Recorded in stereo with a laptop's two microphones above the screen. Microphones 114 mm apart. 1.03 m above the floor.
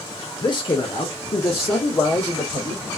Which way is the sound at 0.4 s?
40° left (ahead or behind).